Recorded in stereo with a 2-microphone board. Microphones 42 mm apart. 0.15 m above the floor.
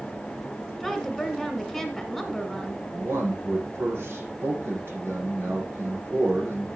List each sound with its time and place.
0.8 s a woman speaking: centre (ahead or behind), 1.4 m
2.9 s a man speaking: 70° right (ahead or behind), 6 m